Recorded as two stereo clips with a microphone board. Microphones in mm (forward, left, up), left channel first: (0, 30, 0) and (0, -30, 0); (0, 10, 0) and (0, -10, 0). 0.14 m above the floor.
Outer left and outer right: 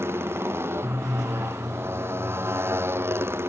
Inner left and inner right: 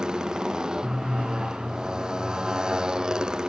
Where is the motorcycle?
40° right (ahead or behind).